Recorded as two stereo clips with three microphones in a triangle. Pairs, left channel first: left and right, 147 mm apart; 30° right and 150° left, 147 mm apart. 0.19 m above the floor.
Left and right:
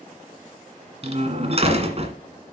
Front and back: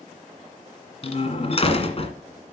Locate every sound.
1.0 s a door slam: 60° right, 1.8 m